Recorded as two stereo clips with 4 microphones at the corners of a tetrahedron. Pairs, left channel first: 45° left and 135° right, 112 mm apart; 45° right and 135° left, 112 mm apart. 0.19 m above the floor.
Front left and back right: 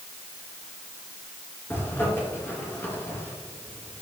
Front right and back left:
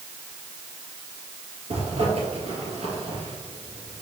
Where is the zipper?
115° left, 2.5 m.